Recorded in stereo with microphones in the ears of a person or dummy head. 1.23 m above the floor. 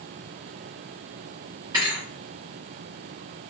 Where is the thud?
20° right (ahead or behind), 0.7 m.